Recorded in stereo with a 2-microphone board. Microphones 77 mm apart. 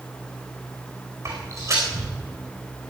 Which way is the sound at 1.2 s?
45° right (ahead or behind).